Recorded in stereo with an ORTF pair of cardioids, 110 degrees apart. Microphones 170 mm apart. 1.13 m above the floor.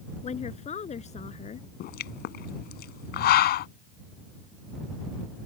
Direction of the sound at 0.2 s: 40° left.